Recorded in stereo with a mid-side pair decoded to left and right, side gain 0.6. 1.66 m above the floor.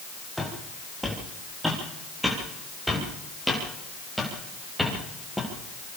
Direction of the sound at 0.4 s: 5° right.